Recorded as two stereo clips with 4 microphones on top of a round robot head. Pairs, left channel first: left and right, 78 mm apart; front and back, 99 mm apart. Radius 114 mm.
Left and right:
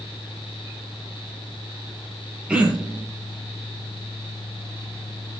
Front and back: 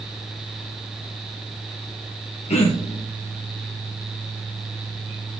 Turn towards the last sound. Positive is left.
turn(degrees=-15)